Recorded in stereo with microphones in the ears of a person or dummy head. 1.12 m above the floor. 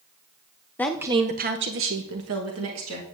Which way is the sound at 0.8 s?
10° left (ahead or behind).